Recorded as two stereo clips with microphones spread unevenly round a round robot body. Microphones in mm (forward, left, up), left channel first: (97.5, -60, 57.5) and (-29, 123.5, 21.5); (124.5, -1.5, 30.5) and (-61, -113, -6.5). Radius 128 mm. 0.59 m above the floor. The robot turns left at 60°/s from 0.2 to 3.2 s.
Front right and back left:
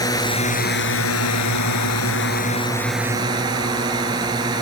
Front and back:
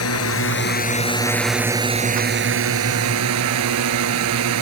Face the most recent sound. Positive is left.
turn(degrees=-160)